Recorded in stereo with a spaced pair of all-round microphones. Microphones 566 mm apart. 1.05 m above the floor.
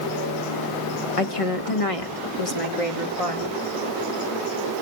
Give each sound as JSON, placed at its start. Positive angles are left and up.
{"t": 1.2, "sound": "a woman speaking", "side_deg": 75, "distance_m": 1.6}